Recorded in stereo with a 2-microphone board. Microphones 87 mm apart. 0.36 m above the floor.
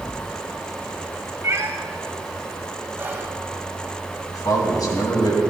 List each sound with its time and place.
1.4 s a cat meowing: 35° right (ahead or behind), 1.1 m
3.0 s whispering: 25° right (ahead or behind), 2 m
4.3 s a man speaking: 50° left (ahead or behind), 3 m